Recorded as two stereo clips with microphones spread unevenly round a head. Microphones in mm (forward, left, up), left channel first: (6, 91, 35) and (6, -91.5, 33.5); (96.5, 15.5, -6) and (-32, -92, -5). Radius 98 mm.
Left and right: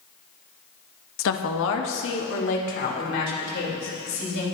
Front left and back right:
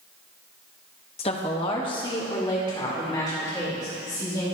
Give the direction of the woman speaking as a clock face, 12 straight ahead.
9 o'clock.